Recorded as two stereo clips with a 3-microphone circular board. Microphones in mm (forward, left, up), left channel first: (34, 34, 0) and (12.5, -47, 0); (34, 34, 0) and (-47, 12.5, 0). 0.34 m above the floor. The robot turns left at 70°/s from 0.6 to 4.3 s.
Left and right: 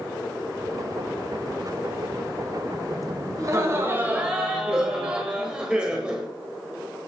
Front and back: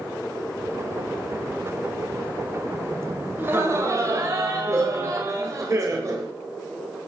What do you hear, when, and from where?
3.4 s laughter: 115° right, 1.2 m; by 6.3 s straight behind, 1.2 m